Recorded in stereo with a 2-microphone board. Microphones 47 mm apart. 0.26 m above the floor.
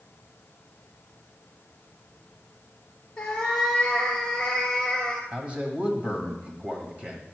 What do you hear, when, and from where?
3.2 s a cat meowing: 20° left (ahead or behind), 1.9 m
5.3 s a man speaking: 25° right (ahead or behind), 1.5 m